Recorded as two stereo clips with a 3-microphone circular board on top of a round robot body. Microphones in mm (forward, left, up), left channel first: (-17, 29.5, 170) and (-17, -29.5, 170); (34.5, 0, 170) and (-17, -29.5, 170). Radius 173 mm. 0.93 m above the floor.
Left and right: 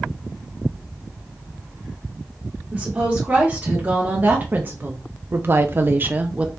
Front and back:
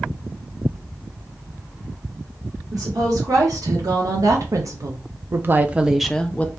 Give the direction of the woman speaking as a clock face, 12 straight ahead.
5 o'clock.